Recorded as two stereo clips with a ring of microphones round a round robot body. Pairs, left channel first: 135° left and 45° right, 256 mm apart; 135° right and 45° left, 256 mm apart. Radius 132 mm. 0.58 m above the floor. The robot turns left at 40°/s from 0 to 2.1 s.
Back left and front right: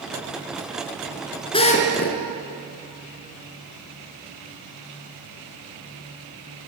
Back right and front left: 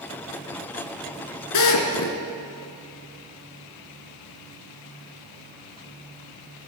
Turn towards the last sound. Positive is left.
turn(degrees=-175)